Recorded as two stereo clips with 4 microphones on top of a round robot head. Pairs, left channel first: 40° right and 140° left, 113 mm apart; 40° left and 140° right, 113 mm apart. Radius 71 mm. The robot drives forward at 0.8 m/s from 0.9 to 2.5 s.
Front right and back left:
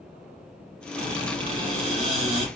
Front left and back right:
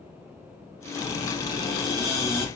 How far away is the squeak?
About 4.5 m.